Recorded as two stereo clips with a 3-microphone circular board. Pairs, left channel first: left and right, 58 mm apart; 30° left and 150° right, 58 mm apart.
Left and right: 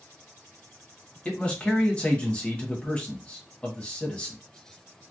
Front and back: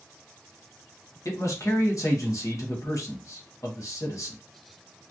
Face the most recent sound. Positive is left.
turn(degrees=20)